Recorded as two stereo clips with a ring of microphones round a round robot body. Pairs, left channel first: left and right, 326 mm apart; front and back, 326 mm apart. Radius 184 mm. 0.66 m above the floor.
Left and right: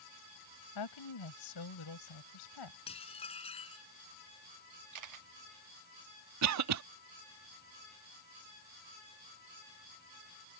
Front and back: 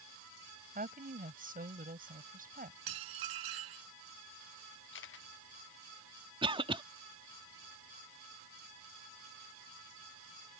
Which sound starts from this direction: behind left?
A woman speaking, at 0.8 s.